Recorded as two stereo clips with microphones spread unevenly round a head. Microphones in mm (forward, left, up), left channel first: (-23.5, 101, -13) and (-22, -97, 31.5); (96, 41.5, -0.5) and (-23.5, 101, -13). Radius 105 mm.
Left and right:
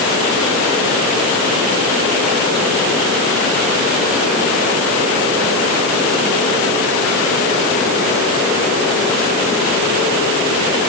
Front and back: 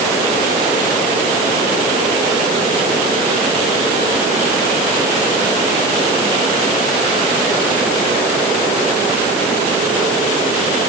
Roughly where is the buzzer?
No buzzer in this recording.